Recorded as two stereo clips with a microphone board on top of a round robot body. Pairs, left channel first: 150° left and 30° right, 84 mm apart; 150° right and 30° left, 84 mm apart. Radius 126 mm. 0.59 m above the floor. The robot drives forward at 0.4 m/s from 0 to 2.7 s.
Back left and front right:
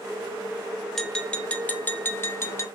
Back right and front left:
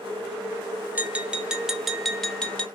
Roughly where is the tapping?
Left.